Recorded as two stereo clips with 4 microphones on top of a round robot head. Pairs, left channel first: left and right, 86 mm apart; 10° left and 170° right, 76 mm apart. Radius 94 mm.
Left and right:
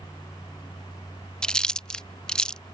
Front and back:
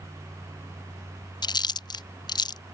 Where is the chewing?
10° left.